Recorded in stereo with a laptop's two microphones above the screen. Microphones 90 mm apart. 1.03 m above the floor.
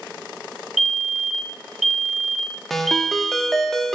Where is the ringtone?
5° left (ahead or behind), 0.8 m.